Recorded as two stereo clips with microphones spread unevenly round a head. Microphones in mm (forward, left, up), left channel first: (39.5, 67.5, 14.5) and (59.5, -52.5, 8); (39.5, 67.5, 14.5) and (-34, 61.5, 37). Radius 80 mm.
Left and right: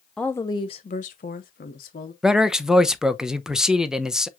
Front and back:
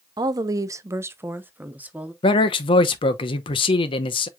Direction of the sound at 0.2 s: 175° right.